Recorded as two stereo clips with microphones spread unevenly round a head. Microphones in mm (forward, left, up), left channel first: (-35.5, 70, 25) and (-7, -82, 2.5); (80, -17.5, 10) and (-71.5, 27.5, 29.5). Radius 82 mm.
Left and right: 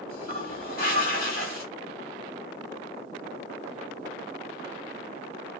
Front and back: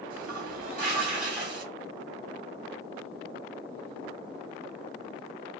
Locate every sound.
0.1 s a toilet flushing: 130° left, 2 m